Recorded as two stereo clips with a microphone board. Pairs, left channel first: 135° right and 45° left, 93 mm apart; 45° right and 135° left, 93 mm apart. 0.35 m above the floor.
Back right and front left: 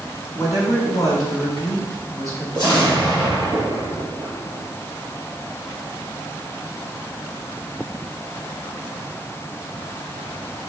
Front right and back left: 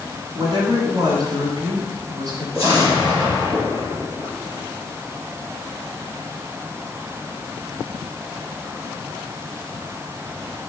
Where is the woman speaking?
175° left, 3 m.